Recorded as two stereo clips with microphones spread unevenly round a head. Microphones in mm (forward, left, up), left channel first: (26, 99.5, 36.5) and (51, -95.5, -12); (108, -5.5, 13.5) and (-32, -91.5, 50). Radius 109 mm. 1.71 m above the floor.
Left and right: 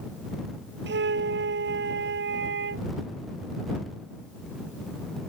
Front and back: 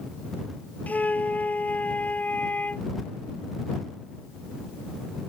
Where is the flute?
50° right.